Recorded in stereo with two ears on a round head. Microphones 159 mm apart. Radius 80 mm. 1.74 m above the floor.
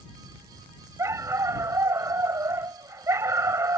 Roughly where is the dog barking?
Centre.